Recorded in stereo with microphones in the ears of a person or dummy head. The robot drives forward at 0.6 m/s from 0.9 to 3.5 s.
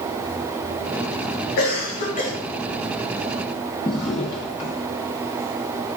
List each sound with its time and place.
1.6 s a cough: 50° left (ahead or behind), 1.3 m; by 2.3 s 40° left (ahead or behind), 1.6 m
3.9 s a drawer: 20° left (ahead or behind), 0.7 m